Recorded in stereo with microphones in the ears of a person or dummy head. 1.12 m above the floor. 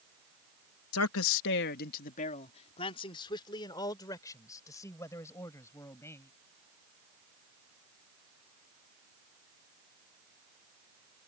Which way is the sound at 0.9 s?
75° left (ahead or behind).